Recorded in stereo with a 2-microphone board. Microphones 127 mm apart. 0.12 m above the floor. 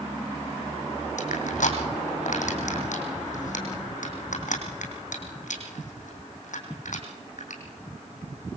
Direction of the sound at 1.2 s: 80° left.